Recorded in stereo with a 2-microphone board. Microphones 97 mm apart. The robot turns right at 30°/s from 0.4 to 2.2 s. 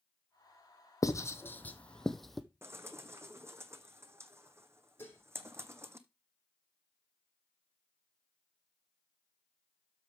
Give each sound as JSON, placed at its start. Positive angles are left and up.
{"t": 1.0, "sound": "writing", "side_deg": 35, "distance_m": 0.9}
{"t": 2.6, "sound": "a bird", "side_deg": -30, "distance_m": 0.8}
{"t": 5.0, "sound": "dishes clattering", "side_deg": 25, "distance_m": 3.5}